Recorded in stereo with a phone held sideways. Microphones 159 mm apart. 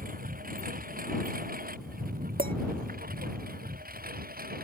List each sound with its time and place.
0.0 s a lawn mower: 70° right (ahead or behind); by 4.7 s 80° right
2.4 s a clink: 80° right